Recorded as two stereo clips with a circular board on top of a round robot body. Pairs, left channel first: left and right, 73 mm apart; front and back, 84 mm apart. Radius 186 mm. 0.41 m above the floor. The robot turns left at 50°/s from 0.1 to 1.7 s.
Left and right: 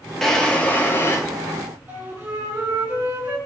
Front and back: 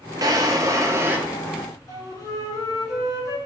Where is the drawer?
175° left, 0.7 m; by 1.2 s 125° left, 0.7 m.